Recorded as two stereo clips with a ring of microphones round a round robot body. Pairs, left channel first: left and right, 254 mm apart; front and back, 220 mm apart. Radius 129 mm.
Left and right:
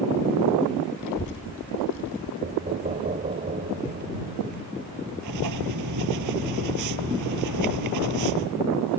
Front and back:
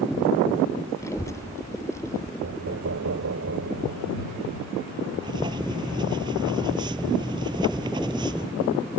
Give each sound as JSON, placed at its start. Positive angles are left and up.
{"t": 1.0, "sound": "a child speaking", "azimuth_deg": 75}
{"t": 2.4, "sound": "knocking", "azimuth_deg": -150}
{"t": 5.2, "sound": "writing", "azimuth_deg": -105}